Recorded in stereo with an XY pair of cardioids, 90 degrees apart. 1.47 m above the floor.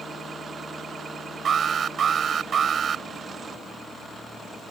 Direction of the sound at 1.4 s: 55° right.